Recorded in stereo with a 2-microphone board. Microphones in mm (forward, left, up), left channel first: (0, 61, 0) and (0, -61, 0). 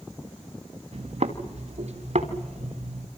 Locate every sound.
0.9 s footsteps: 65° right (ahead or behind), 2.5 m; by 3.1 s 75° right (ahead or behind), 4 m